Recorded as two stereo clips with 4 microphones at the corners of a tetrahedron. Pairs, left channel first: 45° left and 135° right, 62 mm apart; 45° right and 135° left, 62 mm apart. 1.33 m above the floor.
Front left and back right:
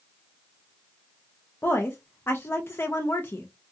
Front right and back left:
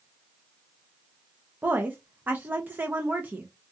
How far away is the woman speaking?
About 0.5 m.